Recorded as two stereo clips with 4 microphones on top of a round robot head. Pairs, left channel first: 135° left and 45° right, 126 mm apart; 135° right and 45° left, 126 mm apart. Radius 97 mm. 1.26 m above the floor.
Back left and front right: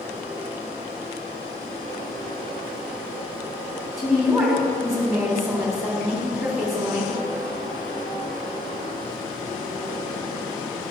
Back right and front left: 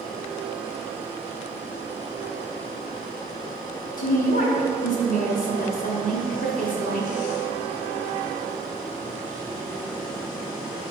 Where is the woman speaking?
135° right, 3.5 m.